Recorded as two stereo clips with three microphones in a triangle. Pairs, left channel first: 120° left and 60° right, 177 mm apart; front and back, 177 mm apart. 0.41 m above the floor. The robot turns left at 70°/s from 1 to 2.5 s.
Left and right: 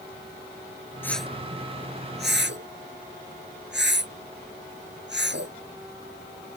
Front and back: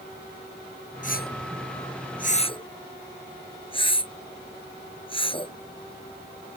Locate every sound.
1.0 s a whoosh: 45° left; by 6.6 s 60° right